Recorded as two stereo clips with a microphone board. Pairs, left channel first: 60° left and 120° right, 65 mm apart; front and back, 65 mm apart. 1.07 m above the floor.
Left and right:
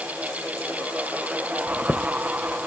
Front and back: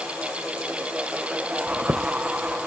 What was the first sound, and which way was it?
A chime, 130° left.